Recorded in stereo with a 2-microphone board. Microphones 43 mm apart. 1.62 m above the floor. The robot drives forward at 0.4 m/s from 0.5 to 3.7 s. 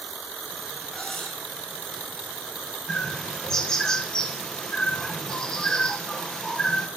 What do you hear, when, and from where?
0.9 s cutlery clinking: 20° left (ahead or behind), 4 m; by 1.4 s 25° left (ahead or behind), 3.5 m
2.9 s a bird: 10° left (ahead or behind), 1.5 m; by 6.9 s 15° left (ahead or behind), 1.2 m